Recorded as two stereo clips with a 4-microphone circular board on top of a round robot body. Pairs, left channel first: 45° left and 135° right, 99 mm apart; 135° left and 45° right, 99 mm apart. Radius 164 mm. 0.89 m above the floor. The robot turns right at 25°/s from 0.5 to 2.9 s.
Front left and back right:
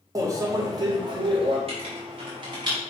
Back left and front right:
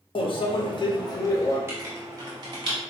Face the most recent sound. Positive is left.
turn(degrees=-80)